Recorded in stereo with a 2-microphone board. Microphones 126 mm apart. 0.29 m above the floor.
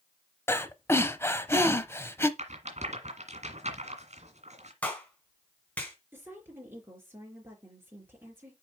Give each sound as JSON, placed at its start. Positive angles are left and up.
{"t": 0.5, "sound": "breathing", "side_deg": 20, "distance_m": 0.7}
{"t": 2.4, "sound": "a rattle", "side_deg": -65, "distance_m": 1.9}
{"t": 4.8, "sound": "a clap", "side_deg": 10, "distance_m": 2.0}
{"t": 6.1, "sound": "a woman speaking", "side_deg": -15, "distance_m": 4.0}